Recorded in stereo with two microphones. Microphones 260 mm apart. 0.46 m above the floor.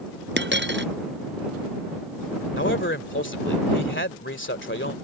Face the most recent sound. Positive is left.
turn(degrees=45)  # may be behind; listen again after turning